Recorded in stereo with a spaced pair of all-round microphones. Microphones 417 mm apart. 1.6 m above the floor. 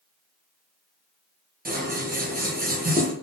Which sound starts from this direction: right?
Scissors, at 1.6 s.